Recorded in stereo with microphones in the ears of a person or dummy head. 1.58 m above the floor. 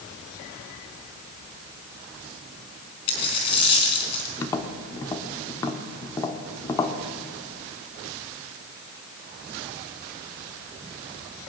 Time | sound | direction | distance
3.1 | a dropped coin | 30° left (ahead or behind) | 4 m
4.4 | tapping | 20° left (ahead or behind) | 1.3 m